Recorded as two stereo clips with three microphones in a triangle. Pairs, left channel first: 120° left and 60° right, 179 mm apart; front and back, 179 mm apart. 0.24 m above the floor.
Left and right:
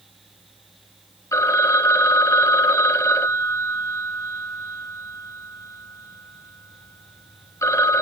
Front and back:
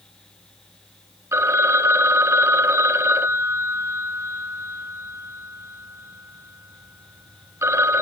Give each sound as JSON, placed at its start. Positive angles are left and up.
{"t": 1.3, "sound": "a phone ringing", "azimuth_deg": 145, "distance_m": 0.7}